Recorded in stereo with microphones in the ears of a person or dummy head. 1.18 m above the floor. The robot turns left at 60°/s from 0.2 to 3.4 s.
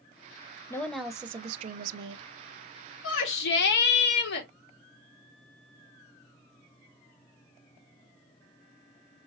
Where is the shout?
85° left, 1.7 m; by 4.5 s 65° left (ahead or behind), 1.7 m.